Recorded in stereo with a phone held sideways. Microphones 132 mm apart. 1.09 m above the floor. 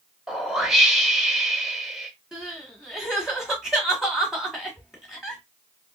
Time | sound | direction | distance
0.3 | a whoosh | 5° right (ahead or behind) | 0.8 m
2.3 | crying | 5° right (ahead or behind) | 1.6 m